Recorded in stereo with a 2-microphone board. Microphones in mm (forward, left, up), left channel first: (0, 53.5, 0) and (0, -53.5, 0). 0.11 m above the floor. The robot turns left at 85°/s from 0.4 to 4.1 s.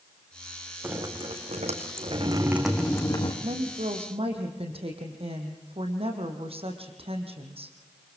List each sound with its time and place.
0.8 s dripping: 20° right, 3.5 m; by 3.3 s 125° left, 3.5 m
3.4 s a woman speaking: 60° right, 4 m; by 7.8 s 115° right, 4 m